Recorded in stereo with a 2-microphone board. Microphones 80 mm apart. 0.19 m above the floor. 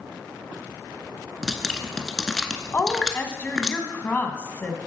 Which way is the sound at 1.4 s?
5° left (ahead or behind).